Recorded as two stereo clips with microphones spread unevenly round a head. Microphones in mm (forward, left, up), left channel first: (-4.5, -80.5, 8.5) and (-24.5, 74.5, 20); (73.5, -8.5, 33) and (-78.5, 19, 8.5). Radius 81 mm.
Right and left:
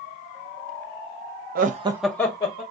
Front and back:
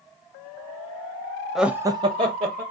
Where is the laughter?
90° left, 0.6 m; by 2.6 s 135° right, 1.0 m.